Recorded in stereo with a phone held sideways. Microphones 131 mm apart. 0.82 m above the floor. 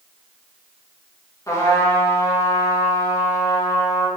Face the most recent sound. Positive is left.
turn(degrees=25)  # may be behind; listen again after turning